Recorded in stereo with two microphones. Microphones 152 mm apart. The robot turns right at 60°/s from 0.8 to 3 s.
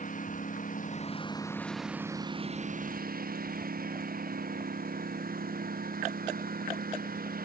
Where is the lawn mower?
120° left; by 7.5 s 105° right.